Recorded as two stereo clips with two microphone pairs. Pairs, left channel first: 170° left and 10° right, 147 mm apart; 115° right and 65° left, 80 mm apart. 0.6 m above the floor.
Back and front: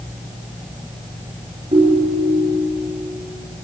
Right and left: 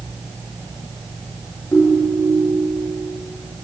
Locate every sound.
1.7 s a ringtone: 55° right, 6 m